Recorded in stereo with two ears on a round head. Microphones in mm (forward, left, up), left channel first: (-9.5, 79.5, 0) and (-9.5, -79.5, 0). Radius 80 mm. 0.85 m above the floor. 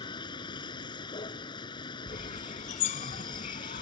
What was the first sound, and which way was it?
A vehicle, 25° left (ahead or behind).